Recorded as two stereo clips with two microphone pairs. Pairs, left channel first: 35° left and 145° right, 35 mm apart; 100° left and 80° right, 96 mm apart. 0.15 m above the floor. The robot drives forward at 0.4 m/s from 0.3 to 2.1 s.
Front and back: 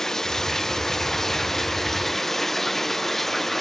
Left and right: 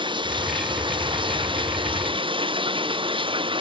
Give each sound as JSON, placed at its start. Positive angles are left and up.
{"t": 0.0, "sound": "running water", "azimuth_deg": -45}